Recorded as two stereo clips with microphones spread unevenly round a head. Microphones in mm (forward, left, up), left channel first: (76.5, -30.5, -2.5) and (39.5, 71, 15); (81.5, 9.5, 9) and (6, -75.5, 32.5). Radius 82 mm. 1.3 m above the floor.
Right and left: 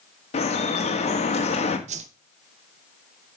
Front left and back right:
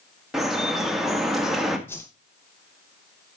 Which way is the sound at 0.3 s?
45° right.